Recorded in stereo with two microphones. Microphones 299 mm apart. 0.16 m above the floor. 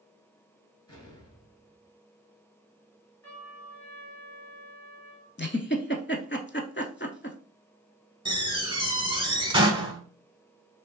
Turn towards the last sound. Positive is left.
turn(degrees=-15)  # may be behind; listen again after turning